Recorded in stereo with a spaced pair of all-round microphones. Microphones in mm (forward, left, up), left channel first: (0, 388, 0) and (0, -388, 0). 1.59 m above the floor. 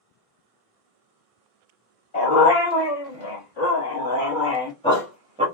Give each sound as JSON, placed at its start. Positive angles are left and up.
{"t": 2.1, "sound": "a dog barking", "side_deg": 55, "distance_m": 1.8}